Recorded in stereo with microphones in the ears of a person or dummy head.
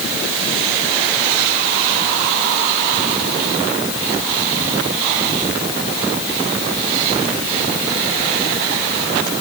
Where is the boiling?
I don't hear boiling.